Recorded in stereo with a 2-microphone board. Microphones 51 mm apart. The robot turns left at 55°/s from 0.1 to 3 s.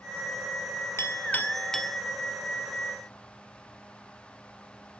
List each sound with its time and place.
1.0 s a clink: 50° left (ahead or behind), 1.8 m; by 2.0 s 5° right (ahead or behind), 1.8 m